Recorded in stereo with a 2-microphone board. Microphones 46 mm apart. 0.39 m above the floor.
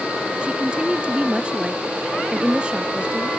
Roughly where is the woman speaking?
Right.